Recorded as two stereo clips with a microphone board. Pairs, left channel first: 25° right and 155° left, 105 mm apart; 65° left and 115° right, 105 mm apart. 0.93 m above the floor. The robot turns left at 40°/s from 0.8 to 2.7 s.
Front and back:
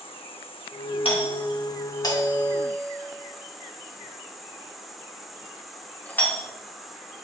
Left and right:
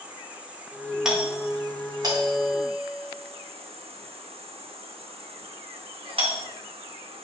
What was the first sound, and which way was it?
An insect, 35° right.